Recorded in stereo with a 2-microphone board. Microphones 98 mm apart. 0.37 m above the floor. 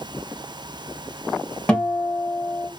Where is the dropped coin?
No dropped coin in this recording.